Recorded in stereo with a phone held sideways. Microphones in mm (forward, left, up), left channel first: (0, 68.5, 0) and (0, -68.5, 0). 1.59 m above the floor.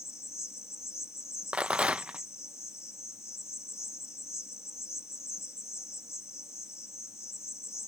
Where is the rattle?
10° right (ahead or behind).